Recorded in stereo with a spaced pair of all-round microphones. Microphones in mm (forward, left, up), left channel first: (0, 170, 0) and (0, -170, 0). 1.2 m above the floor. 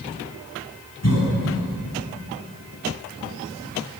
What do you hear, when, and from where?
1.0 s a cough: 50° left (ahead or behind), 8.5 m